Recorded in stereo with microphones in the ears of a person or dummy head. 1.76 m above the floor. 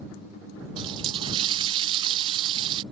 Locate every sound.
0.8 s a running tap: 30° right (ahead or behind)